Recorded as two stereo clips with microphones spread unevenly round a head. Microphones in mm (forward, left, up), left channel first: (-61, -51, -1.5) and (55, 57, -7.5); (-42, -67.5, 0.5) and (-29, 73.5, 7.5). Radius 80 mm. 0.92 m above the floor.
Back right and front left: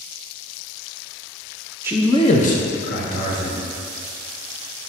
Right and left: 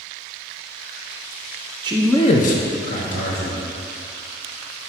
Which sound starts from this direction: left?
A man speaking, at 1.8 s.